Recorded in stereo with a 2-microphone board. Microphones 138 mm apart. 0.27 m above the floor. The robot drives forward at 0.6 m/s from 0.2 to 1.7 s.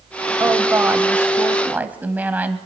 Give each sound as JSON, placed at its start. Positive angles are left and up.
{"t": 0.4, "sound": "a woman speaking", "side_deg": -20, "distance_m": 0.9}